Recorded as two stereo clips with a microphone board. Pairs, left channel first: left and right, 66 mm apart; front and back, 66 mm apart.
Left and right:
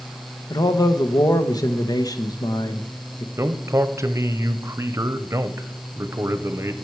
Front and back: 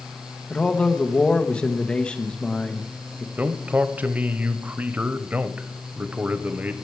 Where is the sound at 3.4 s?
120° right, 0.7 m.